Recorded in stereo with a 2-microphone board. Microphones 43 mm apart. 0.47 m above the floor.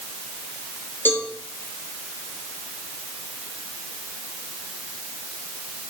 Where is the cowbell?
55° left (ahead or behind), 3.5 m.